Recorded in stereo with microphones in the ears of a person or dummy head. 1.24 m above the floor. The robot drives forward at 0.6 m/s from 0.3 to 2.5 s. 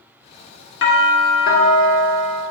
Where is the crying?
I don't hear crying.